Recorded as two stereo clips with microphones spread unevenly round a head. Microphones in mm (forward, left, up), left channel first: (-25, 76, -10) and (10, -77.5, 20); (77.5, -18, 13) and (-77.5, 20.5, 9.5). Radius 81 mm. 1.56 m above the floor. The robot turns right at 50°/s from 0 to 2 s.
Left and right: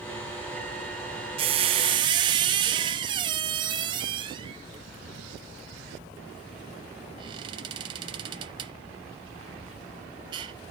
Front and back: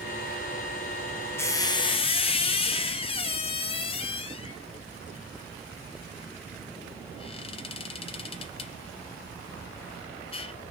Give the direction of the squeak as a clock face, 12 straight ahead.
3 o'clock.